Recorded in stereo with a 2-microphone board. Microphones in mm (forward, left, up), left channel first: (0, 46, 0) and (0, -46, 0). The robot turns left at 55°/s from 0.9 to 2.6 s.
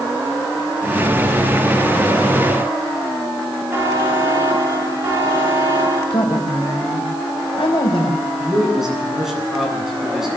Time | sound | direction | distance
3.7 | a buzzer | 25° right (ahead or behind) | 6.5 m
6.1 | a woman speaking | 85° left | 5 m
8.4 | a man speaking | 5° right (ahead or behind) | 9 m